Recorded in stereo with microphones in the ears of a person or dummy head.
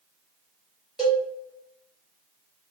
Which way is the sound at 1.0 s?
Centre (ahead or behind).